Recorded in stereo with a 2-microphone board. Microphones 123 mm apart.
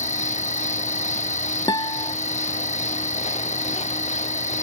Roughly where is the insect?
Left.